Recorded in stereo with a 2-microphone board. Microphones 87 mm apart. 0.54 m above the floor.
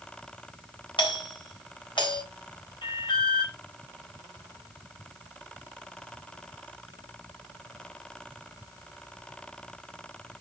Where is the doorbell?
65° left (ahead or behind), 3.5 m.